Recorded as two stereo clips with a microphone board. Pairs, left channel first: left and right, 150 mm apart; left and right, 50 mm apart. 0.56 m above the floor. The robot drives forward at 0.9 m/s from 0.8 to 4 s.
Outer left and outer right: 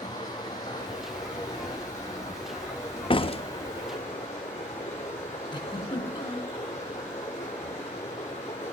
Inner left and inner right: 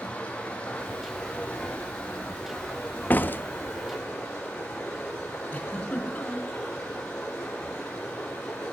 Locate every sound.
0.0 s running water: 25° left (ahead or behind), 8 m; by 8.7 s 20° left (ahead or behind), 10.5 m
3.1 s a door slam: 35° left (ahead or behind), 0.8 m; by 3.4 s 40° left (ahead or behind), 0.7 m
5.5 s a giggle: 30° left (ahead or behind), 3.5 m